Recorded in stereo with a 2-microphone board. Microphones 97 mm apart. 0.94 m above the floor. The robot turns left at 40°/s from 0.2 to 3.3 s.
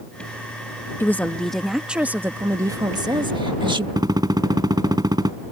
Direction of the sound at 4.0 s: 45° right (ahead or behind).